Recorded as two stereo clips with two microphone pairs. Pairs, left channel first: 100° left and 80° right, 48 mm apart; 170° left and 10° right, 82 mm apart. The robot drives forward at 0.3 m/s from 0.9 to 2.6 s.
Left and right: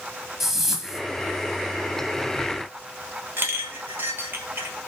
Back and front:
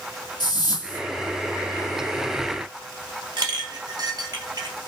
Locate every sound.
0.4 s a whoosh: 165° right, 1.2 m
3.4 s a clink: 40° right, 1.2 m